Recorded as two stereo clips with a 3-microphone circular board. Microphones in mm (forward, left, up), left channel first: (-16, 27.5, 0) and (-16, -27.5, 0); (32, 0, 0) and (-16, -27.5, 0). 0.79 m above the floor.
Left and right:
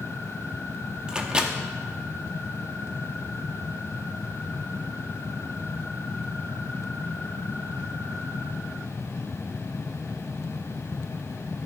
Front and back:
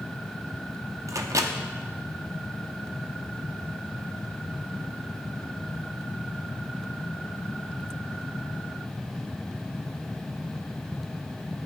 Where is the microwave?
165° right, 0.7 m.